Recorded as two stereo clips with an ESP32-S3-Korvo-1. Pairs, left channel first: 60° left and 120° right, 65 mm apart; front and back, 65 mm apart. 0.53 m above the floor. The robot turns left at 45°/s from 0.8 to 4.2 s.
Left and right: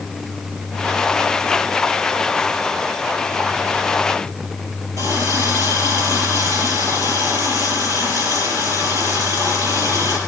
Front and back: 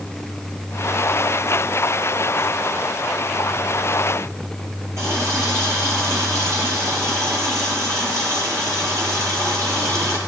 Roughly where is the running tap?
Behind right.